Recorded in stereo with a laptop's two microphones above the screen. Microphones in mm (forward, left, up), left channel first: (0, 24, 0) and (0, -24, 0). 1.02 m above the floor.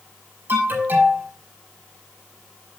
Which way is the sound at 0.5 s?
50° right (ahead or behind).